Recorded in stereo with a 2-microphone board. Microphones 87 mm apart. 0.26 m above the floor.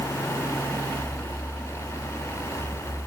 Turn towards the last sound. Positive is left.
No sound to turn to.